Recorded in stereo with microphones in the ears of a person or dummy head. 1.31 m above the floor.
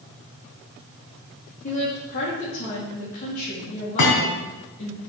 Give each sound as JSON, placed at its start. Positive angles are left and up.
{"t": 1.6, "sound": "a woman speaking", "side_deg": 50, "distance_m": 2.5}
{"t": 4.0, "sound": "a thud", "side_deg": 70, "distance_m": 4.0}